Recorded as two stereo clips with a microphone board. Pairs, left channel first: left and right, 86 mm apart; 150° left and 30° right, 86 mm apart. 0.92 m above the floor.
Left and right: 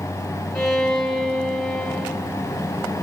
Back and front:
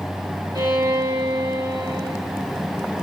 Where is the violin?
5° left, 6.5 m.